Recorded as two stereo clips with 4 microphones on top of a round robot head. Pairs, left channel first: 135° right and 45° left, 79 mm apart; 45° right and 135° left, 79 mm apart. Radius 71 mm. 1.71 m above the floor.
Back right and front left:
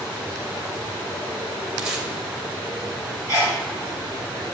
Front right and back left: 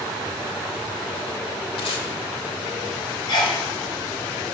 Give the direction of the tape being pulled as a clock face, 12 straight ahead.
1 o'clock.